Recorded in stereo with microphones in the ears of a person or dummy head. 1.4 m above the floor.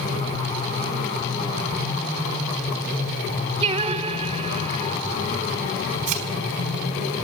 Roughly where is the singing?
Right.